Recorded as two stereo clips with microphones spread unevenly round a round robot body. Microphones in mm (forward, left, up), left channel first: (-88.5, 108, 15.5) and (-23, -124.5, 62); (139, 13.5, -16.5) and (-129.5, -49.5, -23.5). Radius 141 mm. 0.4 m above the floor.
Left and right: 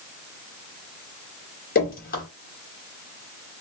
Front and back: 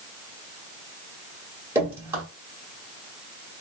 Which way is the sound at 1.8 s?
115° left.